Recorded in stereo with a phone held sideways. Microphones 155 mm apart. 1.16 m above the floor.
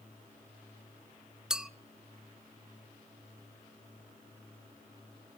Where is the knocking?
No knocking in this recording.